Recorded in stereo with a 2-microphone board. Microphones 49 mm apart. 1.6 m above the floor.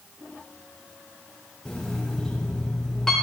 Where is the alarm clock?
10° left (ahead or behind), 3.5 m.